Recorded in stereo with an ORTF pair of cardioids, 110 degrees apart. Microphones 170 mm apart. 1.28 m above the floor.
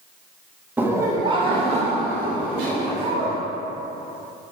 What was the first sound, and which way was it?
Laughter, 10° right.